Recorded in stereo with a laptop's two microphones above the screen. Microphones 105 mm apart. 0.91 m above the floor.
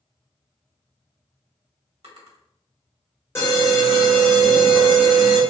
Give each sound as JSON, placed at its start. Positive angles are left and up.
{"t": 2.0, "sound": "a drawer", "side_deg": -75, "distance_m": 1.5}
{"t": 3.4, "sound": "an alarm", "side_deg": 25, "distance_m": 1.4}